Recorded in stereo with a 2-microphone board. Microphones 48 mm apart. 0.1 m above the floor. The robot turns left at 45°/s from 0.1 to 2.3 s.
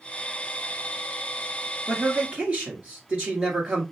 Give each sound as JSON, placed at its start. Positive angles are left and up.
{"t": 1.9, "sound": "a man speaking", "side_deg": -30, "distance_m": 1.8}